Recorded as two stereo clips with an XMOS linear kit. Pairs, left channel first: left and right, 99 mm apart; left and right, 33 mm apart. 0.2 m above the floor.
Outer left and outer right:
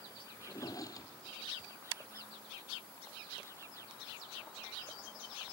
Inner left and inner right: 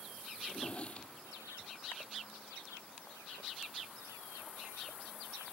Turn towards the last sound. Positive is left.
turn(degrees=35)  # may be behind; listen again after turning